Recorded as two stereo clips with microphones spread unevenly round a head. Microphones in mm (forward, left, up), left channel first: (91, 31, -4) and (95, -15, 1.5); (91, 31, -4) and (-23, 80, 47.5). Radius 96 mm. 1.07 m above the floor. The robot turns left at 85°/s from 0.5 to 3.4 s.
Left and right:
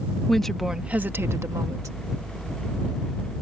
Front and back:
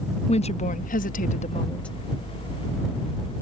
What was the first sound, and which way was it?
A woman speaking, 10° left.